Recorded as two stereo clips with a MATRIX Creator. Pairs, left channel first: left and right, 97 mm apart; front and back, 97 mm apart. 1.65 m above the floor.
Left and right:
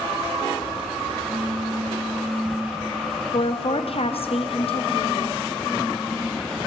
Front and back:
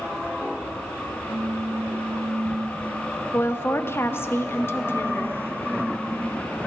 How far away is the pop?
About 0.7 m.